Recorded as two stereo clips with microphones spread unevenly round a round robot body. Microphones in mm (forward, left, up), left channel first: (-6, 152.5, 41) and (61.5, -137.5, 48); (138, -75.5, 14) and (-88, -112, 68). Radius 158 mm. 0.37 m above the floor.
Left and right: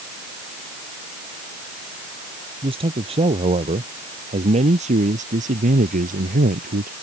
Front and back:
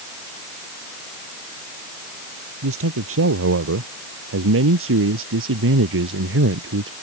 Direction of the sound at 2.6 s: 150° right.